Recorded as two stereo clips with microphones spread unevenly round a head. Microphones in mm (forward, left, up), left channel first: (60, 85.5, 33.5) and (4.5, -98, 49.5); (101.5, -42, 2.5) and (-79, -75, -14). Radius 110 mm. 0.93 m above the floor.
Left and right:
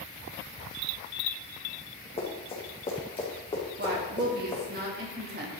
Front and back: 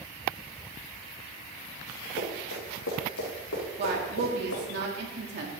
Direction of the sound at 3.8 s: 150° right.